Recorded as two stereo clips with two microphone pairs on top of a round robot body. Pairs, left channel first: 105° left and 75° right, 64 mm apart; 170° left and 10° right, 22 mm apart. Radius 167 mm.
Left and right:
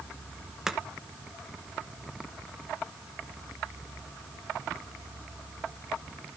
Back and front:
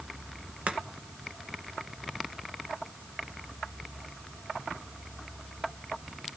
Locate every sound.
0.7 s chopping: 10° left, 1.8 m